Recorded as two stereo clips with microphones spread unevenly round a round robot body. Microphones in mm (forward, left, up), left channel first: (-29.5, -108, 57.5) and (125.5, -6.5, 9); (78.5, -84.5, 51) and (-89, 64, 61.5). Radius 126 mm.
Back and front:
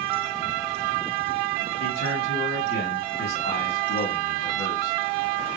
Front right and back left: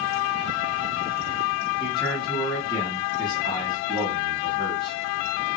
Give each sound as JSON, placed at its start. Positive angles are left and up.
{"t": 1.8, "sound": "a man speaking", "azimuth_deg": -110, "distance_m": 2.5}